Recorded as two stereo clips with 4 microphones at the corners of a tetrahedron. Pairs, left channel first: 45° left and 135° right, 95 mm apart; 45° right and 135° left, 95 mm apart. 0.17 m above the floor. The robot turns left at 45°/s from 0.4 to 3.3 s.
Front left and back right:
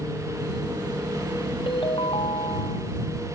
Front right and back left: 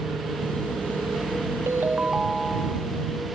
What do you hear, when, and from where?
1.7 s a ringtone: 75° left; by 2.9 s 20° left